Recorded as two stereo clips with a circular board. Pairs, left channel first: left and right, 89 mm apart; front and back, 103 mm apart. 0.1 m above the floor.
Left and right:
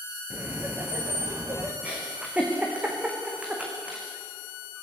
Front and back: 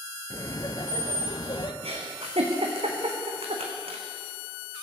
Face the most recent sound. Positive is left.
turn(degrees=-165)